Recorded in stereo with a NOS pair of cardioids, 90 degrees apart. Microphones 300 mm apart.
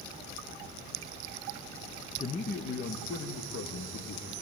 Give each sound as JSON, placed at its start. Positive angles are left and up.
{"t": 2.2, "sound": "a man speaking", "azimuth_deg": 25, "distance_m": 1.2}